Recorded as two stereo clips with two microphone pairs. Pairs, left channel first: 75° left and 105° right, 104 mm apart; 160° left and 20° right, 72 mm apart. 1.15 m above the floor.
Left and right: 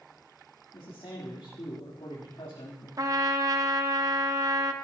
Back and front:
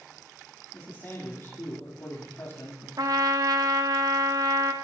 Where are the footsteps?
No footsteps in this recording.